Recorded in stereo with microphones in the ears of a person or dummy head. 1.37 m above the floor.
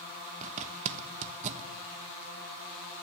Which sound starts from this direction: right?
A zipper, at 0.4 s.